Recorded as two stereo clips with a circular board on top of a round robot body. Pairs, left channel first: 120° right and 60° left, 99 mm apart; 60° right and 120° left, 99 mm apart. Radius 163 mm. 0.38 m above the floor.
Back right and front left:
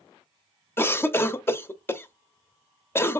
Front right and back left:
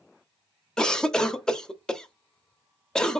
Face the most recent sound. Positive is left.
turn(degrees=-130)